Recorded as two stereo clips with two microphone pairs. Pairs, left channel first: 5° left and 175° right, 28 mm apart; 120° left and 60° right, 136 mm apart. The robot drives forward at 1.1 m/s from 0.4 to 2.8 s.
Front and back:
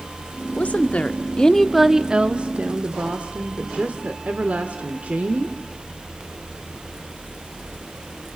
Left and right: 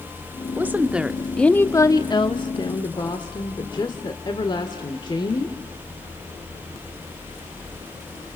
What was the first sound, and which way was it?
A woman speaking, 10° left.